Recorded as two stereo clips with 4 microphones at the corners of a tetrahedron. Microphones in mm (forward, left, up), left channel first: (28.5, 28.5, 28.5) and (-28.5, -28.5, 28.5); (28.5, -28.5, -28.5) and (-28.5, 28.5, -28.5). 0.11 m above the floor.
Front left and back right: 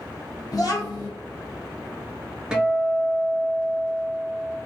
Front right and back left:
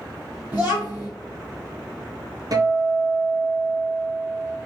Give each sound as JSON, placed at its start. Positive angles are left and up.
{"t": 0.5, "sound": "a child speaking", "azimuth_deg": 70, "distance_m": 1.3}
{"t": 2.5, "sound": "a guitar", "azimuth_deg": 150, "distance_m": 0.6}